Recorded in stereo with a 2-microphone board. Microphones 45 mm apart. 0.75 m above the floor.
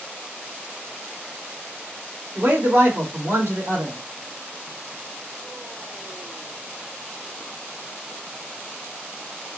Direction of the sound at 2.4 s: 60° right (ahead or behind).